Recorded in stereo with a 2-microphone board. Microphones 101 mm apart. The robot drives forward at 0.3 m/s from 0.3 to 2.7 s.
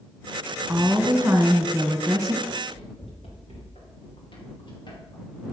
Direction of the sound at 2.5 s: 80° left.